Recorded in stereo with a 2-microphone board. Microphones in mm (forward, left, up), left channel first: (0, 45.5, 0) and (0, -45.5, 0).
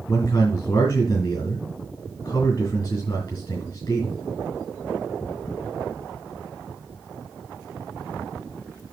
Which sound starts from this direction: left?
A man speaking, at 0.1 s.